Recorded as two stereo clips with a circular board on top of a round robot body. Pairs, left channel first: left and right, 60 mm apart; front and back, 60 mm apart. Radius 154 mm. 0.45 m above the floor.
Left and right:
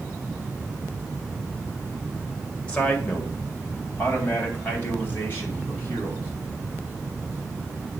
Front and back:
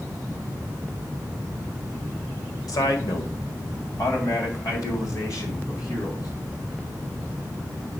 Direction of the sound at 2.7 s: 15° left.